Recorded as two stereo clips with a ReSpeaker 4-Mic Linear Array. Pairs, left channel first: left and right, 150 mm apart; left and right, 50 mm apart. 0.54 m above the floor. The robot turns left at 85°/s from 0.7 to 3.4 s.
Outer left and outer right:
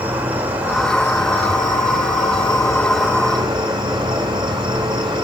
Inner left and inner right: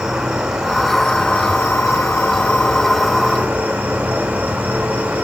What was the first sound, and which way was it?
An insect, 170° right.